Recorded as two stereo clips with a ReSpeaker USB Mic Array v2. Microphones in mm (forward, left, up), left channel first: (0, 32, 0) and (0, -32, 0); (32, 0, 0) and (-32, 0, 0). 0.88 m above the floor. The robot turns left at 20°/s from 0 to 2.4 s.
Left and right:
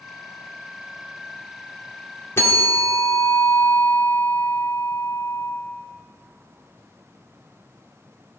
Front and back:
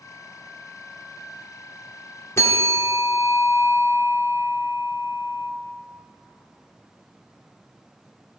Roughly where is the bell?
Ahead left.